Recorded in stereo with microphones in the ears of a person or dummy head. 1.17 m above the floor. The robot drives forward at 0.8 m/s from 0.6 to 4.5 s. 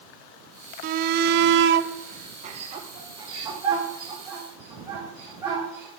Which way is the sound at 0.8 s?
40° right (ahead or behind).